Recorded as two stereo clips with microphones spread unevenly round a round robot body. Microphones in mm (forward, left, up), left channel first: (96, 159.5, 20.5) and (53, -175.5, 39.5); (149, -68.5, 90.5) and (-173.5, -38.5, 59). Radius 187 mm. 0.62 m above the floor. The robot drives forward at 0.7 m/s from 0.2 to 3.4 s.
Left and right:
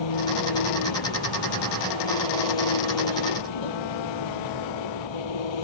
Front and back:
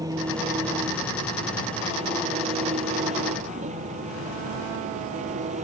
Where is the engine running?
95° left; by 5.7 s 100° left.